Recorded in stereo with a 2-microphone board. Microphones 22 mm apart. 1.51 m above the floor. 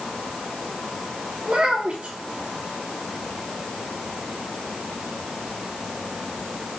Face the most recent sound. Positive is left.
turn(degrees=-75)  # may be behind; listen again after turning